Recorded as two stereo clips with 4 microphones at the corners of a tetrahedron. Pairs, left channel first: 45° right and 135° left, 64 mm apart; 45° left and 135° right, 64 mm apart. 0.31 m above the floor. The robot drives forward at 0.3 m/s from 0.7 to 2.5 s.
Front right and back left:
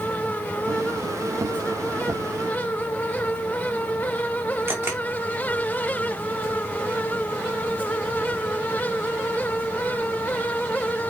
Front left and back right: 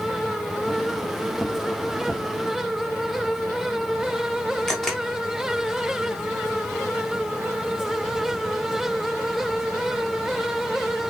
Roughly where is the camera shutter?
Behind left.